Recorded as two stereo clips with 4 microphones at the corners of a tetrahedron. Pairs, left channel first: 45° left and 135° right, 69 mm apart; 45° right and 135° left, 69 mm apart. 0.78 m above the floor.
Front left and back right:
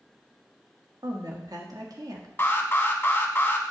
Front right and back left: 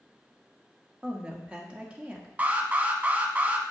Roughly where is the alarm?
Left.